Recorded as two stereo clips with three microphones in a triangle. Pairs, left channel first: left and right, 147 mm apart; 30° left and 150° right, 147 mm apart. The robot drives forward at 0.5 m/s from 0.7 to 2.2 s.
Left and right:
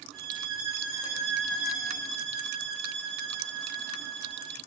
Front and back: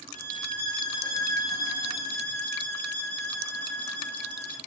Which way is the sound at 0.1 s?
Straight ahead.